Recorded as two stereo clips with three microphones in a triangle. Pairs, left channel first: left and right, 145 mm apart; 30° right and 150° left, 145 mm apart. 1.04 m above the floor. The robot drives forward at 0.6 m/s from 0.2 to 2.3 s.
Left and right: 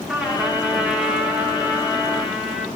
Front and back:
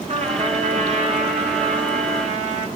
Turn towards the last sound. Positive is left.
turn(degrees=-175)